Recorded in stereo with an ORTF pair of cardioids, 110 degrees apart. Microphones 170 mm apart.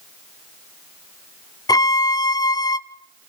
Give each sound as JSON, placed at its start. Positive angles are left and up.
{"t": 1.7, "sound": "a violin", "azimuth_deg": 20, "distance_m": 0.8}